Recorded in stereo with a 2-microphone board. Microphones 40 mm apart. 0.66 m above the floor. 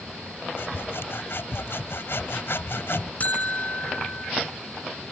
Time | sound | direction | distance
0.6 | sawing | 75° left (ahead or behind) | ?
3.2 | a buzzer | 40° left (ahead or behind) | ?